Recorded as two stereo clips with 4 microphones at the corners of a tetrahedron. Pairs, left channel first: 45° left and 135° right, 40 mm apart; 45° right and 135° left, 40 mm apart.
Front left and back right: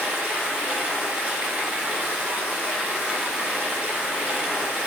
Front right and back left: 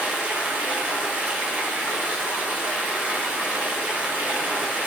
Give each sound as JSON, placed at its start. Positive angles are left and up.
{"t": 0.0, "sound": "running water", "azimuth_deg": 175, "distance_m": 0.8}